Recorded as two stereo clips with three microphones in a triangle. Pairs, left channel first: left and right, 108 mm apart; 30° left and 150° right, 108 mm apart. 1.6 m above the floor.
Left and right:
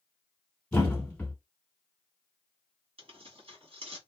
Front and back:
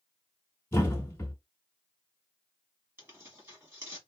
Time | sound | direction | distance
0.7 | a thud | 35° left | 1.3 m
3.0 | tearing paper | 85° right | 1.6 m